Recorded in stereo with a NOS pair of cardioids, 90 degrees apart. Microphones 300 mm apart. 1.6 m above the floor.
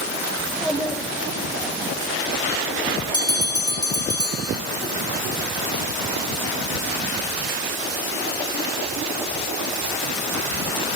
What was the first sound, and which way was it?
A child speaking, straight ahead.